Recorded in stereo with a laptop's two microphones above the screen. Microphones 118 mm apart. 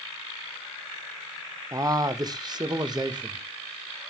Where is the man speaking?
25° right (ahead or behind), 0.7 m; by 3.5 s 35° right (ahead or behind), 1.6 m.